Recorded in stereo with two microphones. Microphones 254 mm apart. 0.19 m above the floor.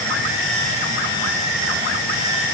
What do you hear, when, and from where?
Only background noise.